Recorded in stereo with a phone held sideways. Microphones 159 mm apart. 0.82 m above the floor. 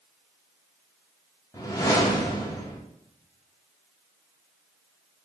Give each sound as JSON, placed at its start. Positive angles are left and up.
{"t": 1.5, "sound": "a whoosh", "side_deg": 20, "distance_m": 0.6}